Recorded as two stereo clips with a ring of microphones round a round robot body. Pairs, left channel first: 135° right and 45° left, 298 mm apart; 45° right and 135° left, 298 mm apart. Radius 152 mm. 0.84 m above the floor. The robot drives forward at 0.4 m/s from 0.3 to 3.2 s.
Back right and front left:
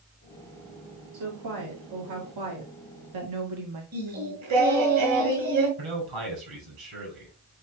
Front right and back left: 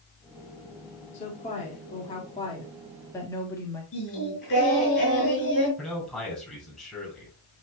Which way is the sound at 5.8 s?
40° left.